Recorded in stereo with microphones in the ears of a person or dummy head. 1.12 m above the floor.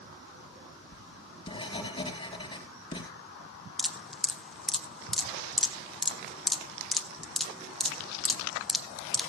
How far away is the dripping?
About 0.8 m.